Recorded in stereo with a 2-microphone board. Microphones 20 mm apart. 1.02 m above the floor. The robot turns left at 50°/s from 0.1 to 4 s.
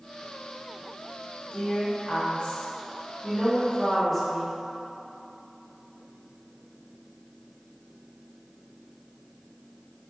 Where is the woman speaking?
135° left, 1.6 m; by 4.6 s 10° left, 1.6 m.